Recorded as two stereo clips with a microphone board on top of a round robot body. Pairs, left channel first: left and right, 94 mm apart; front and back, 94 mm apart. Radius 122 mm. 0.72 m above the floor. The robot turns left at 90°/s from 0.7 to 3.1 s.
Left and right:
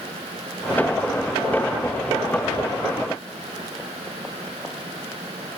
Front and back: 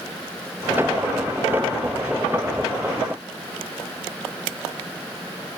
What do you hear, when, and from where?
Only background noise.